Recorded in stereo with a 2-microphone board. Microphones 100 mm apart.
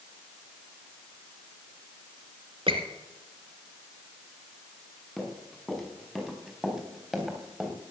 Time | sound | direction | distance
2.7 | a squeak | 65° right (ahead or behind) | 2 m
5.2 | running footsteps | 5° left (ahead or behind) | 5.5 m